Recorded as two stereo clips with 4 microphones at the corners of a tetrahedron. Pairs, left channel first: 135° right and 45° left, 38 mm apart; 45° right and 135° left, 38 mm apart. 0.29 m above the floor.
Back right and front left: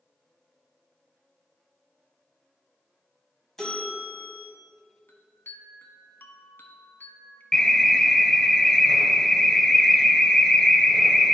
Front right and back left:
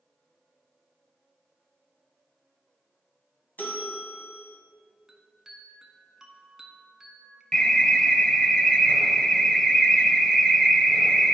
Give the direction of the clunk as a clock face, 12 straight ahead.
No clunk in this recording.